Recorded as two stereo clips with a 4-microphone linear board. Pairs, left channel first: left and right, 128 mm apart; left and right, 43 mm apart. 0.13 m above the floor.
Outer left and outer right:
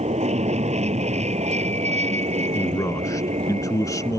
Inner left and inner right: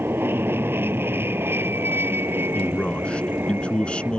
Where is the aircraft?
60° right (ahead or behind).